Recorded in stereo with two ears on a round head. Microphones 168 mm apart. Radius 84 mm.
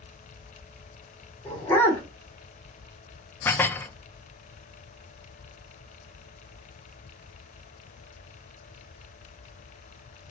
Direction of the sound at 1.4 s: 15° left (ahead or behind).